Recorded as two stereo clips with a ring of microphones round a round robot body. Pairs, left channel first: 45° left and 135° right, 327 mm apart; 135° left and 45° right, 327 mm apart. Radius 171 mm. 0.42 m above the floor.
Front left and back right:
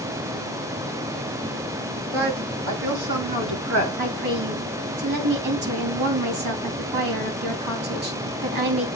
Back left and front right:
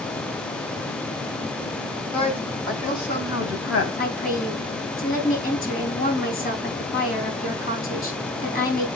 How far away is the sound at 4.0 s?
About 3 m.